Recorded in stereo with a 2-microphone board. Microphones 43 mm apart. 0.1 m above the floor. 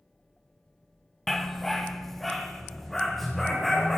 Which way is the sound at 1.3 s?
5° left (ahead or behind).